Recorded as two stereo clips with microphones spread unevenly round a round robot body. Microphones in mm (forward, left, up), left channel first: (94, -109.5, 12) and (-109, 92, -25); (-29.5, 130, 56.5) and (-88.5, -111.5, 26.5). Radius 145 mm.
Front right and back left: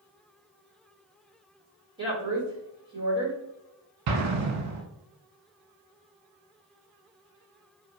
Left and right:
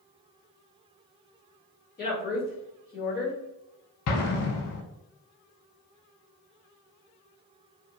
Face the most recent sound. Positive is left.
turn(degrees=100)